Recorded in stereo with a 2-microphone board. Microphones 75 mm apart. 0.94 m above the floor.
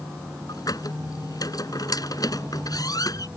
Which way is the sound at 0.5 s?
55° left (ahead or behind).